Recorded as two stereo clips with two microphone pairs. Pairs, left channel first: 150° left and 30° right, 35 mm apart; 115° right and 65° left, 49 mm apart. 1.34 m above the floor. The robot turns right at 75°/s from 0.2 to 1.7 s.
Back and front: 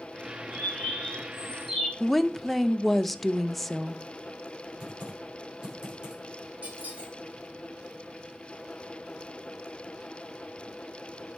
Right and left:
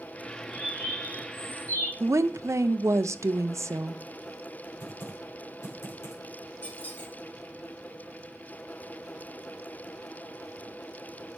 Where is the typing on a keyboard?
100° right, 6.5 m.